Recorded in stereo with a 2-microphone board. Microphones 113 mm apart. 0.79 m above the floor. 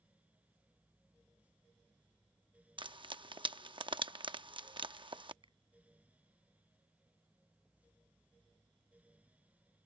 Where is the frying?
45° right (ahead or behind).